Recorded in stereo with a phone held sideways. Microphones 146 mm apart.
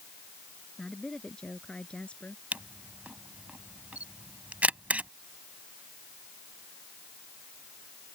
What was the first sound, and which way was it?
A woman speaking, 5° left (ahead or behind).